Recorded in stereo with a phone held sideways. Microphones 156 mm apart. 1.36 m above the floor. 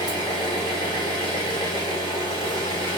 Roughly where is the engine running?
Left.